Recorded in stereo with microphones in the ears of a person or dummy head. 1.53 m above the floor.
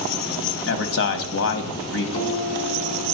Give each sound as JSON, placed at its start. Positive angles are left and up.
{"t": 0.7, "sound": "a man speaking", "side_deg": 65, "distance_m": 1.0}
{"t": 2.1, "sound": "a guitar", "side_deg": 35, "distance_m": 3.0}